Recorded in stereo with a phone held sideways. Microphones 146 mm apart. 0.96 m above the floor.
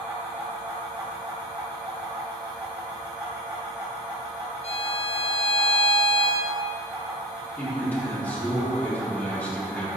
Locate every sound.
0.0 s a fan: 25° right (ahead or behind), 2 m
4.6 s a violin: 45° left (ahead or behind), 0.6 m
7.6 s a man speaking: 10° left (ahead or behind), 2.5 m